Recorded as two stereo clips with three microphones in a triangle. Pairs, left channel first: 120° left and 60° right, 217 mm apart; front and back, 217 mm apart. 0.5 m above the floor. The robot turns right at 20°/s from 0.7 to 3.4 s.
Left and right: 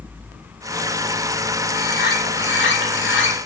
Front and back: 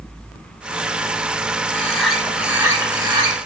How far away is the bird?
About 0.7 m.